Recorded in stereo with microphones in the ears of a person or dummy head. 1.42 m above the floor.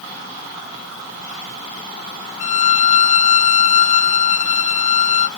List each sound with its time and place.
2.4 s a violin: 50° left (ahead or behind)